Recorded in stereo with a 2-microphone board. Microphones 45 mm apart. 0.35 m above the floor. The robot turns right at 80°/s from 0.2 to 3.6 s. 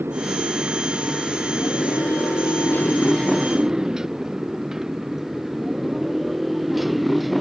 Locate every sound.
0.0 s a motorcycle: 60° right (ahead or behind); by 7.4 s centre (ahead or behind)